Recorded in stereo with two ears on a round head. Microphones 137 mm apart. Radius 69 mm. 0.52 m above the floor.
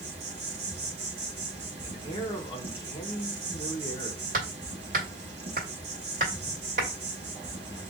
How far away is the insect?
About 1.2 m.